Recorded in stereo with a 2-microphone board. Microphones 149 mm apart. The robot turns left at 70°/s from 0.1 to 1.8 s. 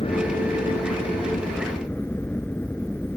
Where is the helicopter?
135° left; by 3.2 s 15° left.